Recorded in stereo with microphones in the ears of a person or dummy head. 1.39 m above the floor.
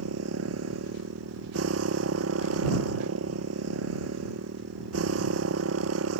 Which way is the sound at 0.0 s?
85° right.